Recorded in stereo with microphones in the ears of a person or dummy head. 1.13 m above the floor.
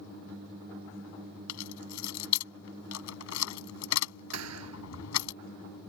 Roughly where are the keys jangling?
Left.